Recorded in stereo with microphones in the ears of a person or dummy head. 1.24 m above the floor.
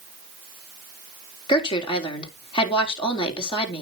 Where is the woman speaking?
25° left (ahead or behind), 3.5 m.